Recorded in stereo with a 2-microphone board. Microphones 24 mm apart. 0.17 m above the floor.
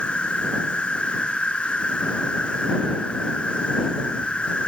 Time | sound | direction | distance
0.0 | an insect | 45° left (ahead or behind) | ?